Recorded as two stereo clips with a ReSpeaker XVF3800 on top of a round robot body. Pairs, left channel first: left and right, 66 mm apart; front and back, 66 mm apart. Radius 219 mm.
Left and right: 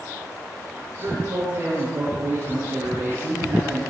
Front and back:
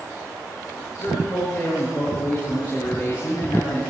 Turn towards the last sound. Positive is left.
turn(degrees=-40)